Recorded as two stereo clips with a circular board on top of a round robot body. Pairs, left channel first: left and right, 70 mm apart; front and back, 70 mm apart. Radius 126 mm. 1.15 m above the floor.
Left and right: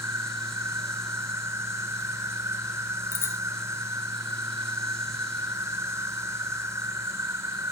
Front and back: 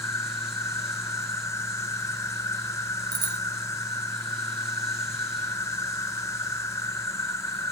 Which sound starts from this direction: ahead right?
An insect, at 0.0 s.